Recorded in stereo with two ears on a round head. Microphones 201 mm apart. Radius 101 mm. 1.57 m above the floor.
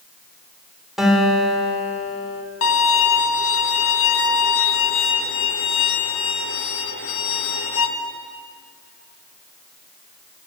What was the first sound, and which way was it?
A guitar, centre (ahead or behind).